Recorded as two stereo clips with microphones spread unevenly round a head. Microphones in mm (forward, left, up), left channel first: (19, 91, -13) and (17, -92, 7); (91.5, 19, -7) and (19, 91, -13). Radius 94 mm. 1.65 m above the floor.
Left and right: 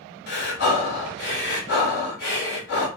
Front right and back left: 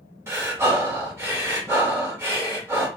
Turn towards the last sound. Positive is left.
turn(degrees=75)